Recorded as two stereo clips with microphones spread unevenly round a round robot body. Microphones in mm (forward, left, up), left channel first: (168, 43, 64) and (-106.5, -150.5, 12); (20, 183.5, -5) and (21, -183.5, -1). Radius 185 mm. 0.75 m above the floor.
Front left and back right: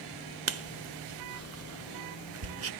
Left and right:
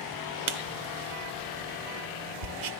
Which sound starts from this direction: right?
Writing, at 0.5 s.